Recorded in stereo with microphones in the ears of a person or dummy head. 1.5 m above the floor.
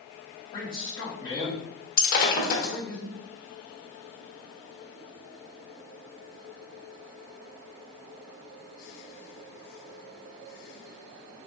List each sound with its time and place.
0.5 s a man speaking: 25° left (ahead or behind), 1.9 m
2.0 s breaking glass: 50° left (ahead or behind), 1.0 m